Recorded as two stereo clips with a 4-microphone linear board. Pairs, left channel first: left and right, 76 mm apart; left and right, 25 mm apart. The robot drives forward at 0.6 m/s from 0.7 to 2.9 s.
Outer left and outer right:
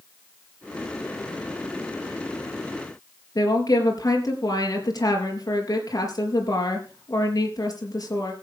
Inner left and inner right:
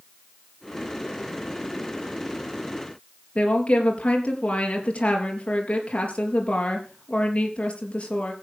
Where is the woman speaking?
50° left (ahead or behind), 4 m.